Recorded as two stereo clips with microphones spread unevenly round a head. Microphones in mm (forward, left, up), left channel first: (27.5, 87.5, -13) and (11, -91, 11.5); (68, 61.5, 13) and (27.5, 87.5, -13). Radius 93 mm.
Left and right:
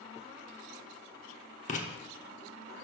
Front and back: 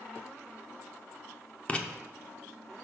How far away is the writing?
About 1.0 m.